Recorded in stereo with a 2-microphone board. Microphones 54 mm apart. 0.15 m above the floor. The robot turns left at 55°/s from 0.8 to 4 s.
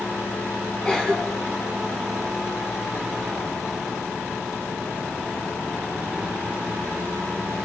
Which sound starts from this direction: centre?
A cough, at 0.8 s.